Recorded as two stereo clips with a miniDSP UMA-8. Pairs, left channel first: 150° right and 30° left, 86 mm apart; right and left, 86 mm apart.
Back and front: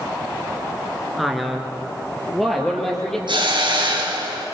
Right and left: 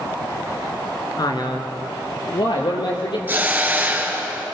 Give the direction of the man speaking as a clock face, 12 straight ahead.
2 o'clock.